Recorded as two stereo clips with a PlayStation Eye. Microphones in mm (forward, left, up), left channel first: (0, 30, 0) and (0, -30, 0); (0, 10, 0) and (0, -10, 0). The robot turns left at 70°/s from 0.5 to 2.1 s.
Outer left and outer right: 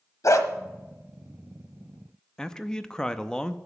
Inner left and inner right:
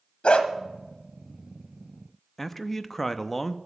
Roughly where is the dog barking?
Left.